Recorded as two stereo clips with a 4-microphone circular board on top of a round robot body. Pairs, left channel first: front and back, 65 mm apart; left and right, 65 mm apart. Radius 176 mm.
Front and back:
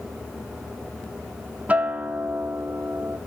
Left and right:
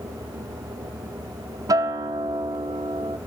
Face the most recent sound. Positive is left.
turn(degrees=-110)